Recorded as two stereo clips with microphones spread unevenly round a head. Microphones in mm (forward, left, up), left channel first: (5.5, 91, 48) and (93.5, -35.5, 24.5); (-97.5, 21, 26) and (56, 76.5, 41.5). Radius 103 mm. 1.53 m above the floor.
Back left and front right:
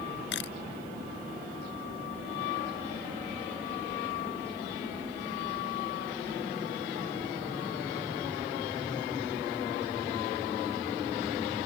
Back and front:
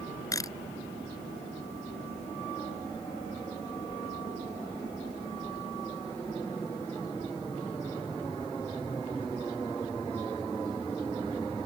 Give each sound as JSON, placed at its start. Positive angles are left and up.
{"t": 0.3, "sound": "a camera shutter", "azimuth_deg": 130}